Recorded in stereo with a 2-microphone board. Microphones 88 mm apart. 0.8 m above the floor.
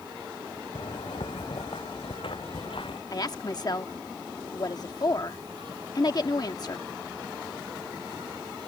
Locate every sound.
0.8 s footsteps: 80° left
3.1 s a woman speaking: 45° left (ahead or behind)